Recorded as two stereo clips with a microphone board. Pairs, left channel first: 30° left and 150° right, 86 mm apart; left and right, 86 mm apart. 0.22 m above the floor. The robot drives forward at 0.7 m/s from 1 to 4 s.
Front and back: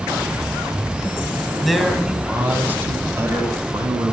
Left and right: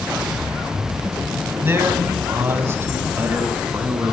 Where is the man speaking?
60° right, 1.6 m; by 4.1 s 145° right, 1.9 m.